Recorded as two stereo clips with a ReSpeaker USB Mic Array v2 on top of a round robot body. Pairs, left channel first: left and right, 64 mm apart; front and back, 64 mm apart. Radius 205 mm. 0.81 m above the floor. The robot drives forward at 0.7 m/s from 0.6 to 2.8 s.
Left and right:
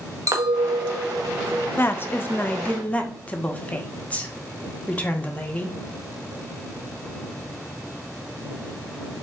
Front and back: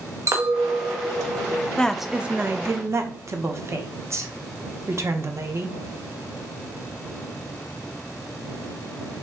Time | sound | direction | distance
0.3 | a clink | 130° right | 0.8 m
1.8 | a woman speaking | 65° left | 0.7 m